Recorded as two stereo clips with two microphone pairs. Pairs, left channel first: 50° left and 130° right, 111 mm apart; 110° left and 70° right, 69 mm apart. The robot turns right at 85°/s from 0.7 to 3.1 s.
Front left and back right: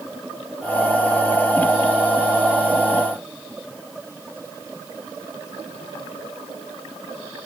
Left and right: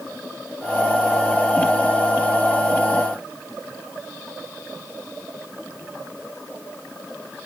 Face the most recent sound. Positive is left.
No sound to turn to.